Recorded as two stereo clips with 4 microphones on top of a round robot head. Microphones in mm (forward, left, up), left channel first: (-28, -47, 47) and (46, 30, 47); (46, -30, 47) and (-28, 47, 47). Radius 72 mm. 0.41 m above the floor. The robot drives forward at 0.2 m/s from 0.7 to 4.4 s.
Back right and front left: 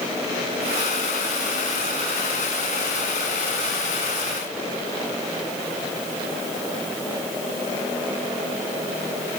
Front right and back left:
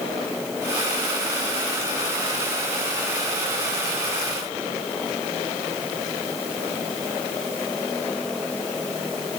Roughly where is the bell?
I don't hear a bell.